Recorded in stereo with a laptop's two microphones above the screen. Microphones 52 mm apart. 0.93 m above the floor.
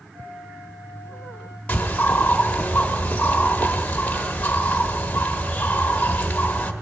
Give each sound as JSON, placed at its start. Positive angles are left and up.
{"t": 0.1, "sound": "a flute", "side_deg": -80, "distance_m": 4.0}
{"t": 1.7, "sound": "a bird", "side_deg": 30, "distance_m": 1.2}